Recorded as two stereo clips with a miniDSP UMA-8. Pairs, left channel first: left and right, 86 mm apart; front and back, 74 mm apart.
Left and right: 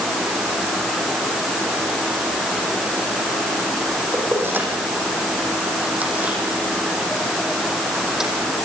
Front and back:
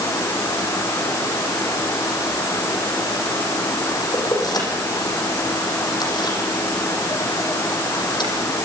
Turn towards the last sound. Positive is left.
turn(degrees=-5)